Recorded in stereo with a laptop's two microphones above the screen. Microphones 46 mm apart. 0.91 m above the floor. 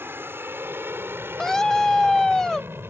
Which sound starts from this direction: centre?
A scream, at 1.4 s.